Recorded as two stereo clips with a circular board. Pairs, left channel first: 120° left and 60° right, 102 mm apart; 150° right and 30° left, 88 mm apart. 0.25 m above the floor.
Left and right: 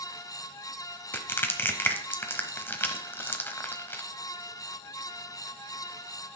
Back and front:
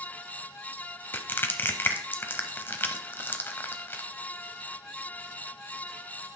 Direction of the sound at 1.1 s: 170° left.